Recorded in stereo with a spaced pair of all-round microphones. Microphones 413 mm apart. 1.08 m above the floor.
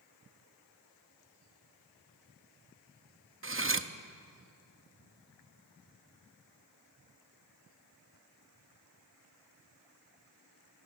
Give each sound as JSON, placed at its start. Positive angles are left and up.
{"t": 3.4, "sound": "cutlery clinking", "side_deg": -30, "distance_m": 0.7}